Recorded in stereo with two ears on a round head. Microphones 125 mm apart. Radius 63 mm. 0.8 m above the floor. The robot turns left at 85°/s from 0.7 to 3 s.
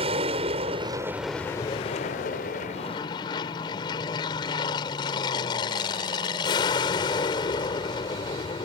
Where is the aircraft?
130° right; by 8.7 s 35° left.